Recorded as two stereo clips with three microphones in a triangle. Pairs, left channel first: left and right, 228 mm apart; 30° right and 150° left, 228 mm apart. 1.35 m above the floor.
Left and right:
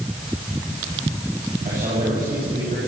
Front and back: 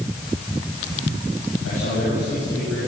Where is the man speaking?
35° right, 10 m.